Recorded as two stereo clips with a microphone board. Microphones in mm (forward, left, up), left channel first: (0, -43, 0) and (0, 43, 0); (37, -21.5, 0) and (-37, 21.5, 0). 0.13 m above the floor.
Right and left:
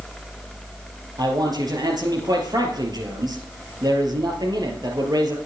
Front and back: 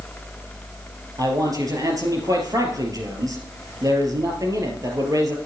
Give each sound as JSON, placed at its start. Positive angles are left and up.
{"t": 1.2, "sound": "a man speaking", "azimuth_deg": 115, "distance_m": 3.0}